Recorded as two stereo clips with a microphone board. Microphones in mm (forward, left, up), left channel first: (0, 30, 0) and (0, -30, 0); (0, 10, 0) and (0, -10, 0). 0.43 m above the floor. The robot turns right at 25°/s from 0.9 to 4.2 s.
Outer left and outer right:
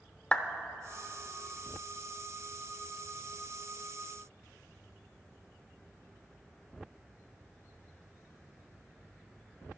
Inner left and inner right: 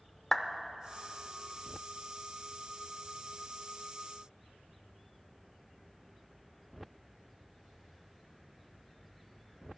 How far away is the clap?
About 0.6 m.